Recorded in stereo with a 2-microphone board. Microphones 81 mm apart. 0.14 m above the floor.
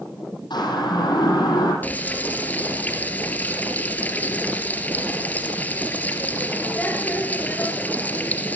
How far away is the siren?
About 7.5 m.